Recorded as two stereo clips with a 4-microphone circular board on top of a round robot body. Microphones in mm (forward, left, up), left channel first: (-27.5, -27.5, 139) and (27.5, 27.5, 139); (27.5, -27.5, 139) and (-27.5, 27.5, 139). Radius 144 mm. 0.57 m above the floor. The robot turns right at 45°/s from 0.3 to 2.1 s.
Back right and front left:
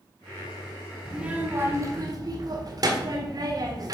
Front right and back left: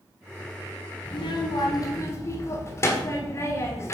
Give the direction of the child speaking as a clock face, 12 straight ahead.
1 o'clock.